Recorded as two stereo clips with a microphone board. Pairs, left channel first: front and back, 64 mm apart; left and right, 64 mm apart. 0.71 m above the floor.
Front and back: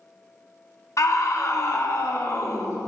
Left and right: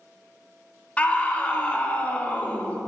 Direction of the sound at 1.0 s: 25° left.